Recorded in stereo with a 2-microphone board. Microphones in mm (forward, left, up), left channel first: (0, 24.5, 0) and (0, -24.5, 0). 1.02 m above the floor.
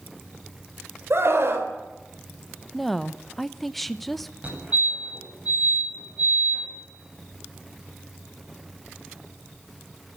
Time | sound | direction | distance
1.1 | a scream | 55° right (ahead or behind) | 3.5 m
2.7 | a woman speaking | 5° left (ahead or behind) | 0.9 m
4.4 | a fire alarm | 25° right (ahead or behind) | 9 m